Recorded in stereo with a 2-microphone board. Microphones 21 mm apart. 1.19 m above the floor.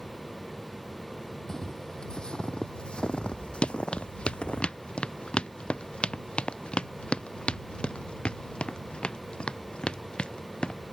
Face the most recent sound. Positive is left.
turn(degrees=55)  # may be behind; listen again after turning